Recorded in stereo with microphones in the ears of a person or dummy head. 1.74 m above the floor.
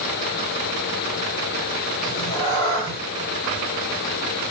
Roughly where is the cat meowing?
Left.